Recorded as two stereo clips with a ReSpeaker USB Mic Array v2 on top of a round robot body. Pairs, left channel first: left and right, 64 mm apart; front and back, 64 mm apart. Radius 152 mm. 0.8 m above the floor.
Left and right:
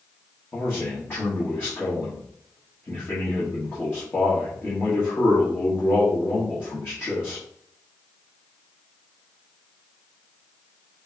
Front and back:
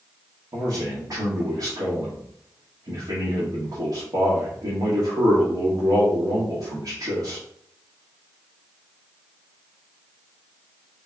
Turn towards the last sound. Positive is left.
turn(degrees=150)